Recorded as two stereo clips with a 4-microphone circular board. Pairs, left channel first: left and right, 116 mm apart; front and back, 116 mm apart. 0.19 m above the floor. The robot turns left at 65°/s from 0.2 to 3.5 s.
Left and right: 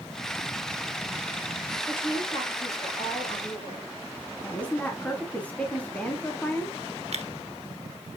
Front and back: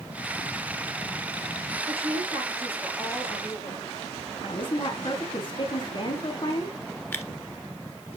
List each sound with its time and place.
1.9 s a woman speaking: 165° left, 3.5 m; by 3.9 s 55° left, 3.5 m
4.4 s a woman speaking: 15° left, 1.4 m
7.1 s tearing paper: 70° right, 1.1 m